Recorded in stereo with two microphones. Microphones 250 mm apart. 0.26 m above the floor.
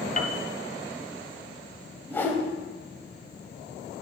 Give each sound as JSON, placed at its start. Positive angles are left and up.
{"t": 0.2, "sound": "a piano", "side_deg": 35, "distance_m": 0.7}
{"t": 2.1, "sound": "a whoosh", "side_deg": 10, "distance_m": 1.1}